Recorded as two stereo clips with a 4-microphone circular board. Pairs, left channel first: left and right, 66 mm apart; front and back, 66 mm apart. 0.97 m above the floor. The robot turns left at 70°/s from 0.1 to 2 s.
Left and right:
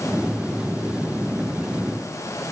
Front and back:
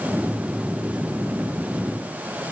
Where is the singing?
I don't hear singing.